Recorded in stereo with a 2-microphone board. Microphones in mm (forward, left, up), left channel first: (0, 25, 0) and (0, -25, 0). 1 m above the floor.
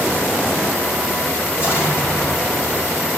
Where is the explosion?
45° left (ahead or behind), 5.5 m.